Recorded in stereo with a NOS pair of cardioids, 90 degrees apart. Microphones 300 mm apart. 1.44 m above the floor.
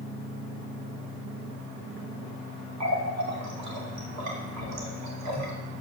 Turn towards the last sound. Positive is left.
turn(degrees=-65)